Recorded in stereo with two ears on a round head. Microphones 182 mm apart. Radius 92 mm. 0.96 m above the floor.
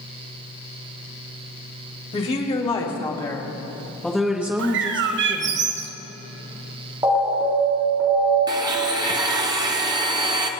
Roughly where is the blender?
Centre.